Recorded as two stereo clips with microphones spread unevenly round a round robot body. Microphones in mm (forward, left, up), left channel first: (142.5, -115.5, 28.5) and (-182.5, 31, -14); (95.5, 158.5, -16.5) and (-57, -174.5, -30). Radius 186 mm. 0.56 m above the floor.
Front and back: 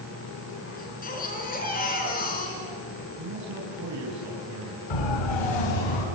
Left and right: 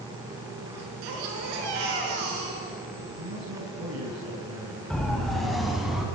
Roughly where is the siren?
Ahead right.